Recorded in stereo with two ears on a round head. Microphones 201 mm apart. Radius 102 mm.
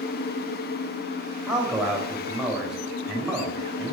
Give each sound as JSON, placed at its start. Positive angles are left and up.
{"t": 1.5, "sound": "a man speaking", "side_deg": -5, "distance_m": 3.5}